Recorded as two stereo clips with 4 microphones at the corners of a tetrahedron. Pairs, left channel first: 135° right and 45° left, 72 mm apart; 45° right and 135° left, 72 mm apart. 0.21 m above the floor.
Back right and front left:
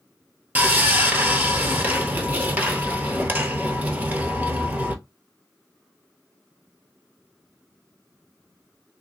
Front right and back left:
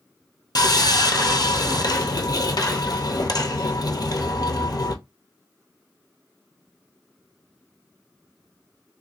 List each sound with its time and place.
0.6 s sawing: 20° right, 0.8 m